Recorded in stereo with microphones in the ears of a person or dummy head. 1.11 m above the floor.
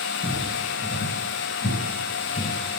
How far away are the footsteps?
About 1.5 m.